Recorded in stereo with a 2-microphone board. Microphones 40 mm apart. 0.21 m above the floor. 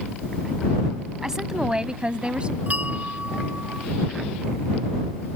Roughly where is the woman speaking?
Centre.